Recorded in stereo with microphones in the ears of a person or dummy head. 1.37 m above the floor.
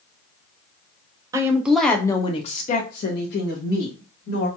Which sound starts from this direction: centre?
A woman speaking, at 1.3 s.